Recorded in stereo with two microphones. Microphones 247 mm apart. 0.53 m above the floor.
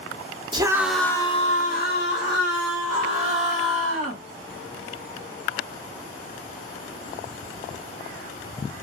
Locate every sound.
0.5 s a scream: 20° right (ahead or behind), 0.7 m; by 4.2 s 65° left (ahead or behind), 1.9 m